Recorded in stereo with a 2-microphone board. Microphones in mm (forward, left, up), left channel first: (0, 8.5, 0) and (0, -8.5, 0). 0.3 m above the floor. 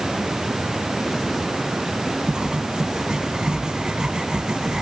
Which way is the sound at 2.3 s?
55° right (ahead or behind).